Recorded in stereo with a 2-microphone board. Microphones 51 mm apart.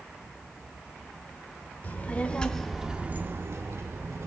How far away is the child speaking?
About 1.2 m.